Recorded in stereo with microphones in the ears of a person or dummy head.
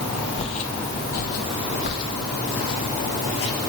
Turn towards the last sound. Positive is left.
turn(degrees=65)  # may be behind; listen again after turning